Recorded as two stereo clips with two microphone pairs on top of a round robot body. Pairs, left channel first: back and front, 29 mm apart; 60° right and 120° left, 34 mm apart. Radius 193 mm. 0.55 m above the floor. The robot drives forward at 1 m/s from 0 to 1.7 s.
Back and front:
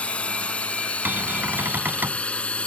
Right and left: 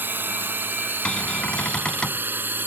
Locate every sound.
0.0 s a drone: 130° left
1.1 s a cupboard door: straight ahead